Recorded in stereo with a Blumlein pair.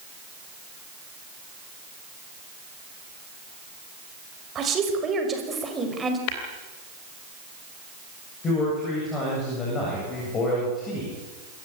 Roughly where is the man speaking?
Ahead left.